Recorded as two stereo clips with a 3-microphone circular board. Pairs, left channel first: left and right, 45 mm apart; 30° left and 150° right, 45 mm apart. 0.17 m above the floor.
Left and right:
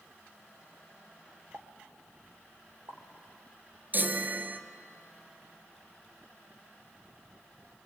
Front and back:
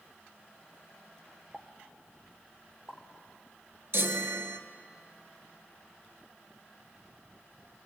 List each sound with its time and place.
1.5 s a pop: 70° right, 2.5 m
3.9 s a chime: 130° right, 1.3 m